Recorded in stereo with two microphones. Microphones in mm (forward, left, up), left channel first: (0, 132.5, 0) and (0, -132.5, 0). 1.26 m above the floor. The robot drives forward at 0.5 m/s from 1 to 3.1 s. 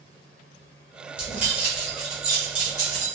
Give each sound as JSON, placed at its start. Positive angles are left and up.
{"t": 1.2, "sound": "keys jangling", "side_deg": -5, "distance_m": 1.6}